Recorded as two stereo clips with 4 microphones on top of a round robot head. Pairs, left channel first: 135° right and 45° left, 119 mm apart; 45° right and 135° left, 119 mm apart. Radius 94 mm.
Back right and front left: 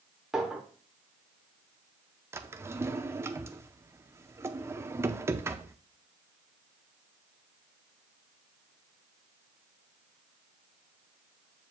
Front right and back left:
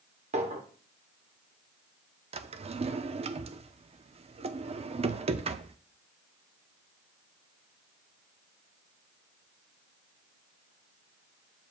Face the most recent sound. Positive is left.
turn(degrees=115)